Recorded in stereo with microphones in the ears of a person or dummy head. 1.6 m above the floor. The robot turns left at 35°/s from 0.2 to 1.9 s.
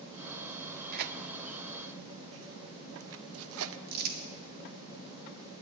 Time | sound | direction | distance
0.9 | tearing paper | 45° right (ahead or behind) | 0.6 m
3.9 | crumpling | 55° right (ahead or behind) | 1.7 m